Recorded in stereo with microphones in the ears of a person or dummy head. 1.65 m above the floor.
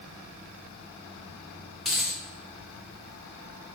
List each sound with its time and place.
1.9 s a dropped coin: centre (ahead or behind), 1.0 m